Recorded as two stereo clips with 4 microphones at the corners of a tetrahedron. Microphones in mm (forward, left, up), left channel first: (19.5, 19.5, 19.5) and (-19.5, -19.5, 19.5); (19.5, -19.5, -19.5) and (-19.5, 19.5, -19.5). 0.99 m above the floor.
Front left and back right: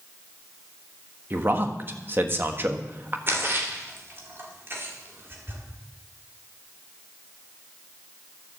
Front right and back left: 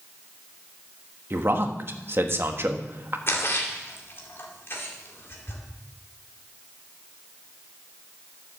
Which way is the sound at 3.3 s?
90° right.